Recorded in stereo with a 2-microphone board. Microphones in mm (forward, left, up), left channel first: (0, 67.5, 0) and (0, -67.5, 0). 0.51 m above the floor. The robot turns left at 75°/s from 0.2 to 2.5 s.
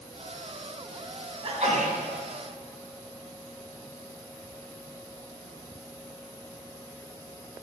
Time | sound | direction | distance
1.4 | a sneeze | 35° right | 3 m